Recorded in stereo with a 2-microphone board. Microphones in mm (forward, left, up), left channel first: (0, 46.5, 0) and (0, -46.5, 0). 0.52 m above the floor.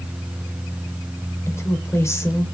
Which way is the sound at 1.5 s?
30° left (ahead or behind).